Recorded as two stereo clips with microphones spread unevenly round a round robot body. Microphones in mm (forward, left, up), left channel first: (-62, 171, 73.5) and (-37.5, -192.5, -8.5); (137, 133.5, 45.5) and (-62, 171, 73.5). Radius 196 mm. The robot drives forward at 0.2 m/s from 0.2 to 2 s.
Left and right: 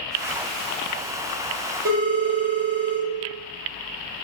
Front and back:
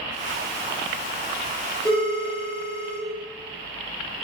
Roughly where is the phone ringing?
Behind right.